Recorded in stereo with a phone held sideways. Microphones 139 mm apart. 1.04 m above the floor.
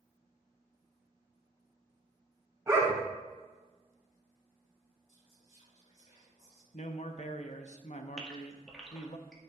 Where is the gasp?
5° left (ahead or behind), 1.7 m.